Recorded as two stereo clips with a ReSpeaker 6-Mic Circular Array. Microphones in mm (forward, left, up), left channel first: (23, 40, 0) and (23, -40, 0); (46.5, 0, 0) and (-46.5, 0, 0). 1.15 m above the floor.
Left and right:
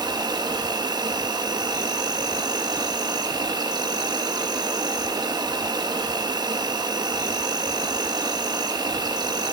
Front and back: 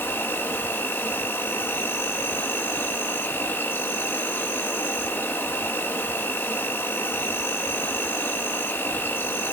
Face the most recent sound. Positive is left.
turn(degrees=-65)